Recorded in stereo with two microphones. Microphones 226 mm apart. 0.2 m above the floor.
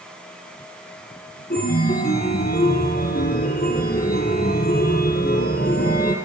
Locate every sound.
1.5 s a chime: 40° left (ahead or behind), 4 m